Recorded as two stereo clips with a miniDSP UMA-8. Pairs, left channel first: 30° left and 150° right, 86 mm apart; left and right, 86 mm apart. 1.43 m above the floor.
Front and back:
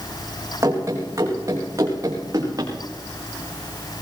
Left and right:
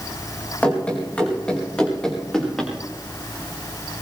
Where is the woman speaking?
I don't hear a woman speaking.